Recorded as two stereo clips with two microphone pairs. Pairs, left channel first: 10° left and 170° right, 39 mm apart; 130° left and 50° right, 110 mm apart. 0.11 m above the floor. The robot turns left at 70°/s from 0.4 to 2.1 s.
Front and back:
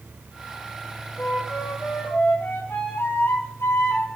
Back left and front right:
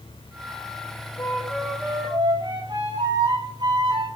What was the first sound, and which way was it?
A flute, 65° left.